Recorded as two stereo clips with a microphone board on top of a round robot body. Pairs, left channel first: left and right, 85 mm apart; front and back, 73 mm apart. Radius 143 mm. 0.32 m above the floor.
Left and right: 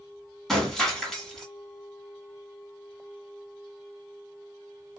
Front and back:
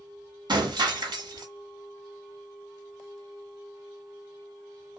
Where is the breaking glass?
175° left, 1.7 m.